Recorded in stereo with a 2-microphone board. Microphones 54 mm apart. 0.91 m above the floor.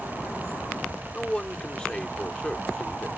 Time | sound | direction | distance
1.1 | a man speaking | 15° left (ahead or behind) | ?